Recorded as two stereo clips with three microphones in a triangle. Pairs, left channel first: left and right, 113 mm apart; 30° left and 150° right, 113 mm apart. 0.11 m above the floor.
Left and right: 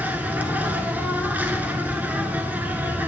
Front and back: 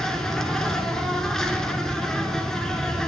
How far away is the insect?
About 0.7 m.